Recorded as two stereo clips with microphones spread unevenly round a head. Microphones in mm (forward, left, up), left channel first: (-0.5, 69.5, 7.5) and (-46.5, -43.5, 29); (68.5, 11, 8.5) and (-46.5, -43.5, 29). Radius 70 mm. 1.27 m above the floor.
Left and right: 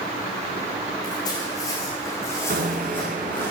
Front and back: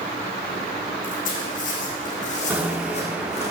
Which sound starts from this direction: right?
A bicycle bell, at 2.5 s.